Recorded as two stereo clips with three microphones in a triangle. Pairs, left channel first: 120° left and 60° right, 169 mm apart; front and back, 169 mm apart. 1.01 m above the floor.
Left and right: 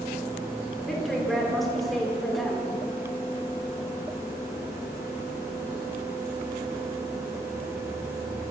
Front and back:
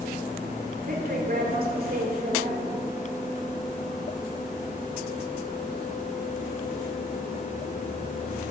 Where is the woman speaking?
150° right, 3 m.